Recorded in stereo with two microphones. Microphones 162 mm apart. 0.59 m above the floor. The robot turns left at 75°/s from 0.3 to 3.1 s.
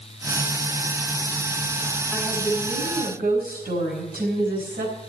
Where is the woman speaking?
Straight ahead, 4.5 m; by 5.0 s 75° right, 4.5 m.